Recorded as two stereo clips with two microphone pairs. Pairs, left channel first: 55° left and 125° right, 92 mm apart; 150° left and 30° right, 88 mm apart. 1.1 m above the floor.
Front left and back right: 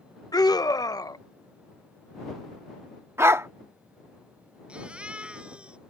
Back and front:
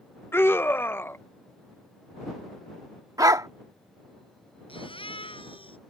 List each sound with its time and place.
0.3 s a scream: 90° left
3.2 s a dog barking: 70° right
4.7 s a baby crying: 155° left